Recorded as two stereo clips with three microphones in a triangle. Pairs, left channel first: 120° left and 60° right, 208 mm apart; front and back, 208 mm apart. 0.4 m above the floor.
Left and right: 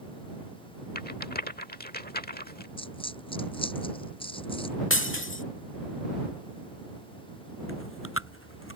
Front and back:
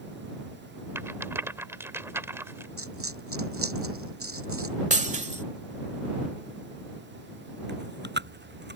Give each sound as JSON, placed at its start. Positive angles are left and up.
{"t": 0.9, "sound": "a rattle", "azimuth_deg": 105}
{"t": 2.8, "sound": "a dropped coin", "azimuth_deg": -175}
{"t": 4.9, "sound": "breaking glass", "azimuth_deg": 130}
{"t": 7.7, "sound": "chewing", "azimuth_deg": 140}